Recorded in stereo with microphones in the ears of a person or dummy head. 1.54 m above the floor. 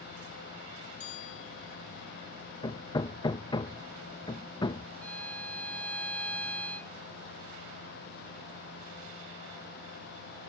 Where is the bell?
40° left (ahead or behind).